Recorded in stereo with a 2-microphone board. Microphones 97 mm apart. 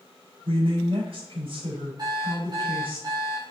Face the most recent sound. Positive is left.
turn(degrees=-45)  # may be behind; listen again after turning